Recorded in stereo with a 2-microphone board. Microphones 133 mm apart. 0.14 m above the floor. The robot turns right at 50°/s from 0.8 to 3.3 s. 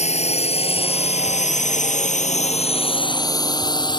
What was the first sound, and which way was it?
A drone, 55° left (ahead or behind).